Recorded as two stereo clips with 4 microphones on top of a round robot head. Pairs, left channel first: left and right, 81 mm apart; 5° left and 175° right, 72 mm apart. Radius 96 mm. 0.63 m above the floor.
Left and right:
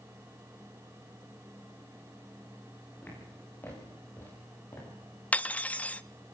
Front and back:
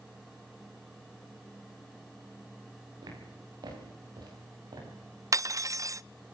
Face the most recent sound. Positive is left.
turn(degrees=155)